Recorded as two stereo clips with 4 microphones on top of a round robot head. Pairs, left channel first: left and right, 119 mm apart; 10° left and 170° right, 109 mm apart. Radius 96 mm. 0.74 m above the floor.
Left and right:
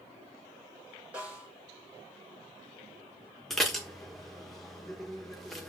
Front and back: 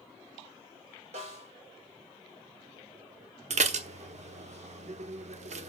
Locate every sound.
1.1 s a snare drum: 170° right, 4 m
3.5 s dishes clattering: straight behind, 1.1 m